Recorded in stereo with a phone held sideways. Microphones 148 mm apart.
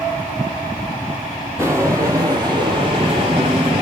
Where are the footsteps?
20° right (ahead or behind), 1.9 m; by 3.8 s 40° right (ahead or behind), 1.9 m.